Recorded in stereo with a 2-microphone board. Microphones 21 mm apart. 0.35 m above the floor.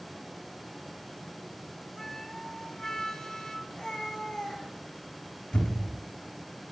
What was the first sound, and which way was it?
A flute, 20° left (ahead or behind).